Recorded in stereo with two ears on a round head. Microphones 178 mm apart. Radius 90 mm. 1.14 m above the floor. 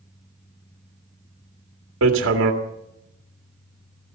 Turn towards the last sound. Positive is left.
turn(degrees=-75)  # may be behind; listen again after turning